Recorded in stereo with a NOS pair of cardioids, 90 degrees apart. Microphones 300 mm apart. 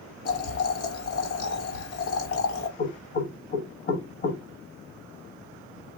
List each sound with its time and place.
0.2 s boiling: 50° left, 1.2 m
2.8 s knocking: 40° left, 0.9 m